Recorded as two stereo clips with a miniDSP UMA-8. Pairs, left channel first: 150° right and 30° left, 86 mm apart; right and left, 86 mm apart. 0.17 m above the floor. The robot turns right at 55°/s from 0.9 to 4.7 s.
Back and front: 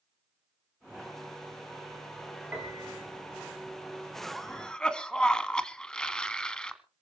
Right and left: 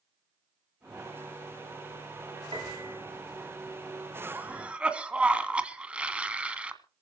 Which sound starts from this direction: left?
A piano, at 2.5 s.